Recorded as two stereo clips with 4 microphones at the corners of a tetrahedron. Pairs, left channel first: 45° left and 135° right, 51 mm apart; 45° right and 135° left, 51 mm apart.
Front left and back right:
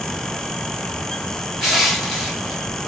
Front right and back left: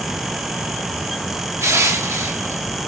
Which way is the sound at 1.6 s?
130° left.